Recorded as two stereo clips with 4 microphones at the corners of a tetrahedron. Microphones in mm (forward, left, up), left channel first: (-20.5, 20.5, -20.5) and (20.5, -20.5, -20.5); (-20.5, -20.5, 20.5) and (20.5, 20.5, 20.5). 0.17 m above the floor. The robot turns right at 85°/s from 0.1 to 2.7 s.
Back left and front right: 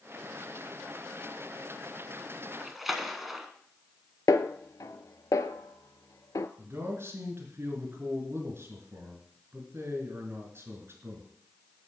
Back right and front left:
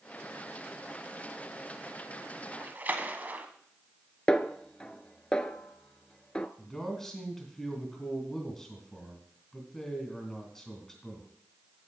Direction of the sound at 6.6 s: 55° right.